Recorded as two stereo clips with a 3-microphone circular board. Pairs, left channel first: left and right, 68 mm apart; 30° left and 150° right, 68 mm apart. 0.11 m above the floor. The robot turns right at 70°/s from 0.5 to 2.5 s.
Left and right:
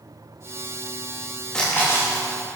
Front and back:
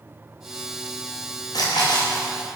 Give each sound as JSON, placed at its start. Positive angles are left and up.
{"t": 1.5, "sound": "a splash", "azimuth_deg": 10, "distance_m": 6.0}